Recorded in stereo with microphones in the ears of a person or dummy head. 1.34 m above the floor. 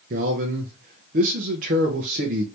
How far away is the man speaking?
About 0.6 m.